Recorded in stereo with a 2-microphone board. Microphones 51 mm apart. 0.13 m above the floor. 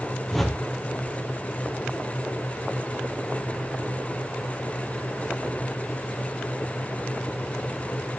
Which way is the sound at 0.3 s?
5° left (ahead or behind).